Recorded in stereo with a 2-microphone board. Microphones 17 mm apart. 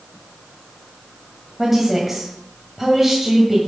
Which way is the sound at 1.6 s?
10° right (ahead or behind).